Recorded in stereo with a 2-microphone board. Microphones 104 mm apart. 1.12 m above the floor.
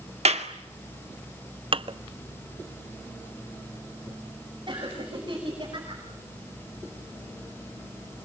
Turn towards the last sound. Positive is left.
turn(degrees=-40)  # may be behind; listen again after turning